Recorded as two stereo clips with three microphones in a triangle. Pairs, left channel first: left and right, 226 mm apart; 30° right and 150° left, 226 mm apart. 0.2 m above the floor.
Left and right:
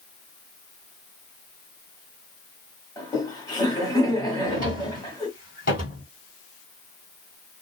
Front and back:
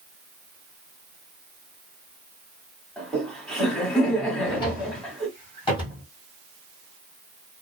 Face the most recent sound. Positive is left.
turn(degrees=40)